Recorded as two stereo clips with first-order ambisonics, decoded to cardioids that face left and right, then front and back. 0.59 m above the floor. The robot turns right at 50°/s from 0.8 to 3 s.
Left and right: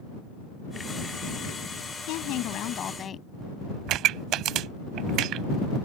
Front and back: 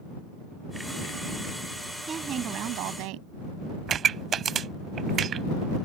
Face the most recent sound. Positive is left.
turn(degrees=-120)